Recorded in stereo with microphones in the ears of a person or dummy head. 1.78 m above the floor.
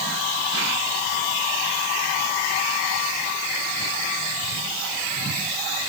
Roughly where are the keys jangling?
I don't hear keys jangling.